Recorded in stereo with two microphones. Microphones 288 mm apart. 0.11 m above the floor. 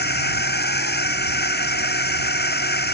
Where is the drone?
30° left (ahead or behind).